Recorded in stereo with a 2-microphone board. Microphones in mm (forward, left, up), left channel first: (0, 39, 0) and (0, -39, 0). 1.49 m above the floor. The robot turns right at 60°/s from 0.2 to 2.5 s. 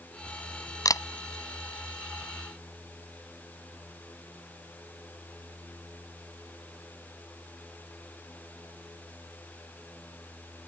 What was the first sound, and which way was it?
A camera shutter, 55° left (ahead or behind).